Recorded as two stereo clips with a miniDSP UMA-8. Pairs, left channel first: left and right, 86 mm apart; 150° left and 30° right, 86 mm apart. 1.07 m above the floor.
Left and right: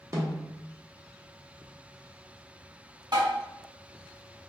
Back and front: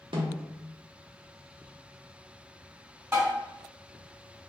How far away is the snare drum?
About 0.7 m.